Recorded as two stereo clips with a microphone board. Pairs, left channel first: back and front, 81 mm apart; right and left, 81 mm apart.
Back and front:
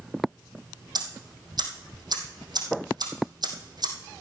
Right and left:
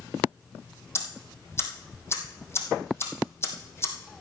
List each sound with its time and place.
0.9 s ticking: 30° right, 2.5 m